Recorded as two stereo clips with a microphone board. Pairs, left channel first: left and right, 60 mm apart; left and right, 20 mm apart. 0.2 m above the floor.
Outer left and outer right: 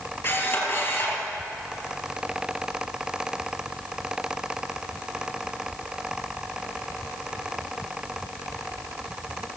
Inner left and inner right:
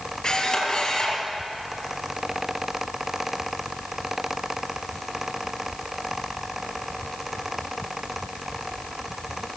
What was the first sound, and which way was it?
A camera shutter, 50° left (ahead or behind).